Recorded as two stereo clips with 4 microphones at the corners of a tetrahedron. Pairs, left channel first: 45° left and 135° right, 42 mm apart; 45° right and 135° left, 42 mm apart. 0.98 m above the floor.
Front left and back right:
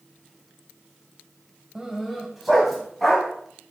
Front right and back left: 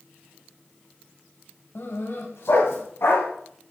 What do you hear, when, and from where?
1.8 s a dog barking: 60° right, 1.6 m; by 3.3 s 45° right, 3 m